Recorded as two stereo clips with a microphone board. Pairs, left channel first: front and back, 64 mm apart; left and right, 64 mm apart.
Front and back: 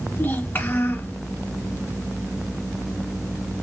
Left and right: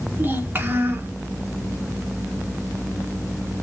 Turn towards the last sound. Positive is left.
turn(degrees=-45)